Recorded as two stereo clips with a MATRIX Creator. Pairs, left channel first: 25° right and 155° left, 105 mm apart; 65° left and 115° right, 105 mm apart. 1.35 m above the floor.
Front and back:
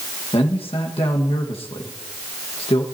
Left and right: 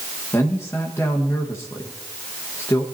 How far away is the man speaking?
About 1.5 m.